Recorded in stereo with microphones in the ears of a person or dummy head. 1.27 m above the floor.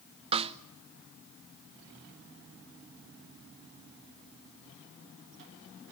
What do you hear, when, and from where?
0.3 s a snare drum: 35° right (ahead or behind), 0.6 m